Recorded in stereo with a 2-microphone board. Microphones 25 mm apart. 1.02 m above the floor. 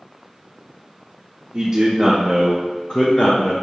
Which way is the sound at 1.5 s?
40° right (ahead or behind).